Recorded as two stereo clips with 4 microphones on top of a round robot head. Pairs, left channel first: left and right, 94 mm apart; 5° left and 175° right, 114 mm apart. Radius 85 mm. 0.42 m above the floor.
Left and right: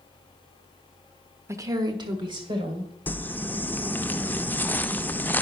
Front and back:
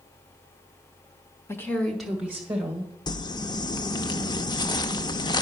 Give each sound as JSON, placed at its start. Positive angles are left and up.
{"t": 1.5, "sound": "a woman speaking", "azimuth_deg": -50, "distance_m": 1.0}
{"t": 3.1, "sound": "crumpling", "azimuth_deg": 30, "distance_m": 0.6}